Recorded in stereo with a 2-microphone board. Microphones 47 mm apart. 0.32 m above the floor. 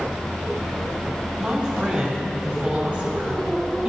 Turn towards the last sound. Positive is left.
turn(degrees=-30)  # may be behind; listen again after turning